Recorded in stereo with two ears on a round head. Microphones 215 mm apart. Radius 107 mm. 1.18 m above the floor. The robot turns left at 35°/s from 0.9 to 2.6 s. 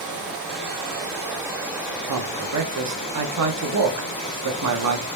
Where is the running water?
145° right, 2.5 m; by 5.2 s 155° left, 2.5 m.